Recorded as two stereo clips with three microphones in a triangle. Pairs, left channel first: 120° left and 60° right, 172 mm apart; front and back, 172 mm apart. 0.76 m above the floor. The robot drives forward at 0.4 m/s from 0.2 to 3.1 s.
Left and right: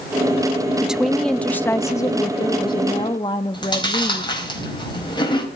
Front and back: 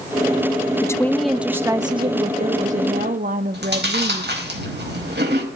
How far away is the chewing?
About 4.5 m.